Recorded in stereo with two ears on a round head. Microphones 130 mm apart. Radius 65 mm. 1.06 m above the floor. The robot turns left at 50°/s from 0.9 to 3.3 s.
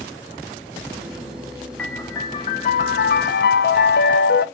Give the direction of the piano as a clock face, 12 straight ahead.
6 o'clock.